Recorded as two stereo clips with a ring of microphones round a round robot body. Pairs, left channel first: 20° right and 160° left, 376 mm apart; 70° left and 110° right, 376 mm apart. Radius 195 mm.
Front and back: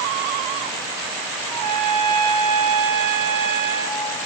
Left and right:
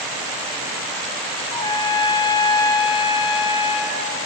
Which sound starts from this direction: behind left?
A trumpet, at 1.5 s.